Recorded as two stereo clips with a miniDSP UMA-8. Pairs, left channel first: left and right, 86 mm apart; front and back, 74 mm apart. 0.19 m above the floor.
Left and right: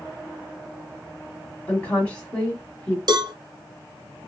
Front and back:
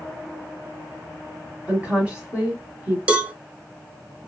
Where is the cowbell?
110° right, 0.7 m.